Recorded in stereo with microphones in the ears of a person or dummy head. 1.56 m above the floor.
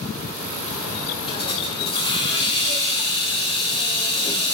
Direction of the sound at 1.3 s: 30° left (ahead or behind).